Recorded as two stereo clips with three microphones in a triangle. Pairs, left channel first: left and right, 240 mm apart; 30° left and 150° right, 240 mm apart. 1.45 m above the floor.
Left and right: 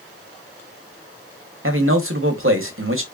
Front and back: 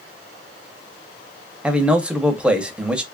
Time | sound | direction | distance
1.6 | a man speaking | 65° right | 0.9 m